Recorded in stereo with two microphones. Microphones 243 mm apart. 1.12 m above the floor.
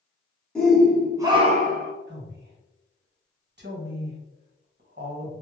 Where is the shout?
5° left (ahead or behind), 0.9 m; by 1.9 s 50° right (ahead or behind), 0.5 m.